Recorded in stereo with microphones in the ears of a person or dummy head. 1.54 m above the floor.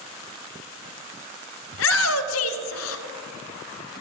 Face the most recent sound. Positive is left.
turn(degrees=75)  # may be behind; listen again after turning